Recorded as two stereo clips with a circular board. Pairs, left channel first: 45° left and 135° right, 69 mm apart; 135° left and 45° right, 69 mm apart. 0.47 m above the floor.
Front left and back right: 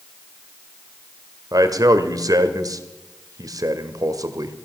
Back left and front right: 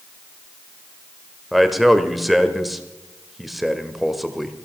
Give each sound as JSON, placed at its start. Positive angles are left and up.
{"t": 1.5, "sound": "a man speaking", "azimuth_deg": -130, "distance_m": 1.4}